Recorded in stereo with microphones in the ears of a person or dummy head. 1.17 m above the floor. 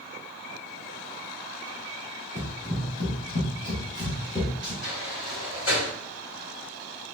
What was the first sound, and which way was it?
Running footsteps, 55° left (ahead or behind).